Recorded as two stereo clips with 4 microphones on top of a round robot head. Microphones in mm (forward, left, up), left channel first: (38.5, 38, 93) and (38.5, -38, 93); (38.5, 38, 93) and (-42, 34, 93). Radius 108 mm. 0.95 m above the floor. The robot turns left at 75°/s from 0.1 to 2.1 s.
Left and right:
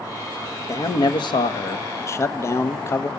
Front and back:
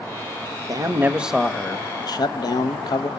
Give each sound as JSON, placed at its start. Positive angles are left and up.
{"t": 0.7, "sound": "a man speaking", "azimuth_deg": 145, "distance_m": 1.4}